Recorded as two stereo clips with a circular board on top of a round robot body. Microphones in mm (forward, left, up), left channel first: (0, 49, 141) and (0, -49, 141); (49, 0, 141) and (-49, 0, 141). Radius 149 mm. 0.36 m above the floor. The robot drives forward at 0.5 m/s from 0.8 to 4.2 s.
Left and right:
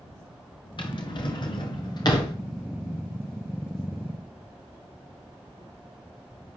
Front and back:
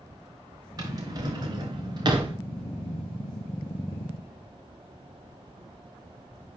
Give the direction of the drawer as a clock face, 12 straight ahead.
8 o'clock.